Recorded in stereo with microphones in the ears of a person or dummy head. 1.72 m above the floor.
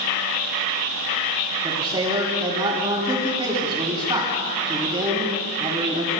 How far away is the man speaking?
About 3.5 m.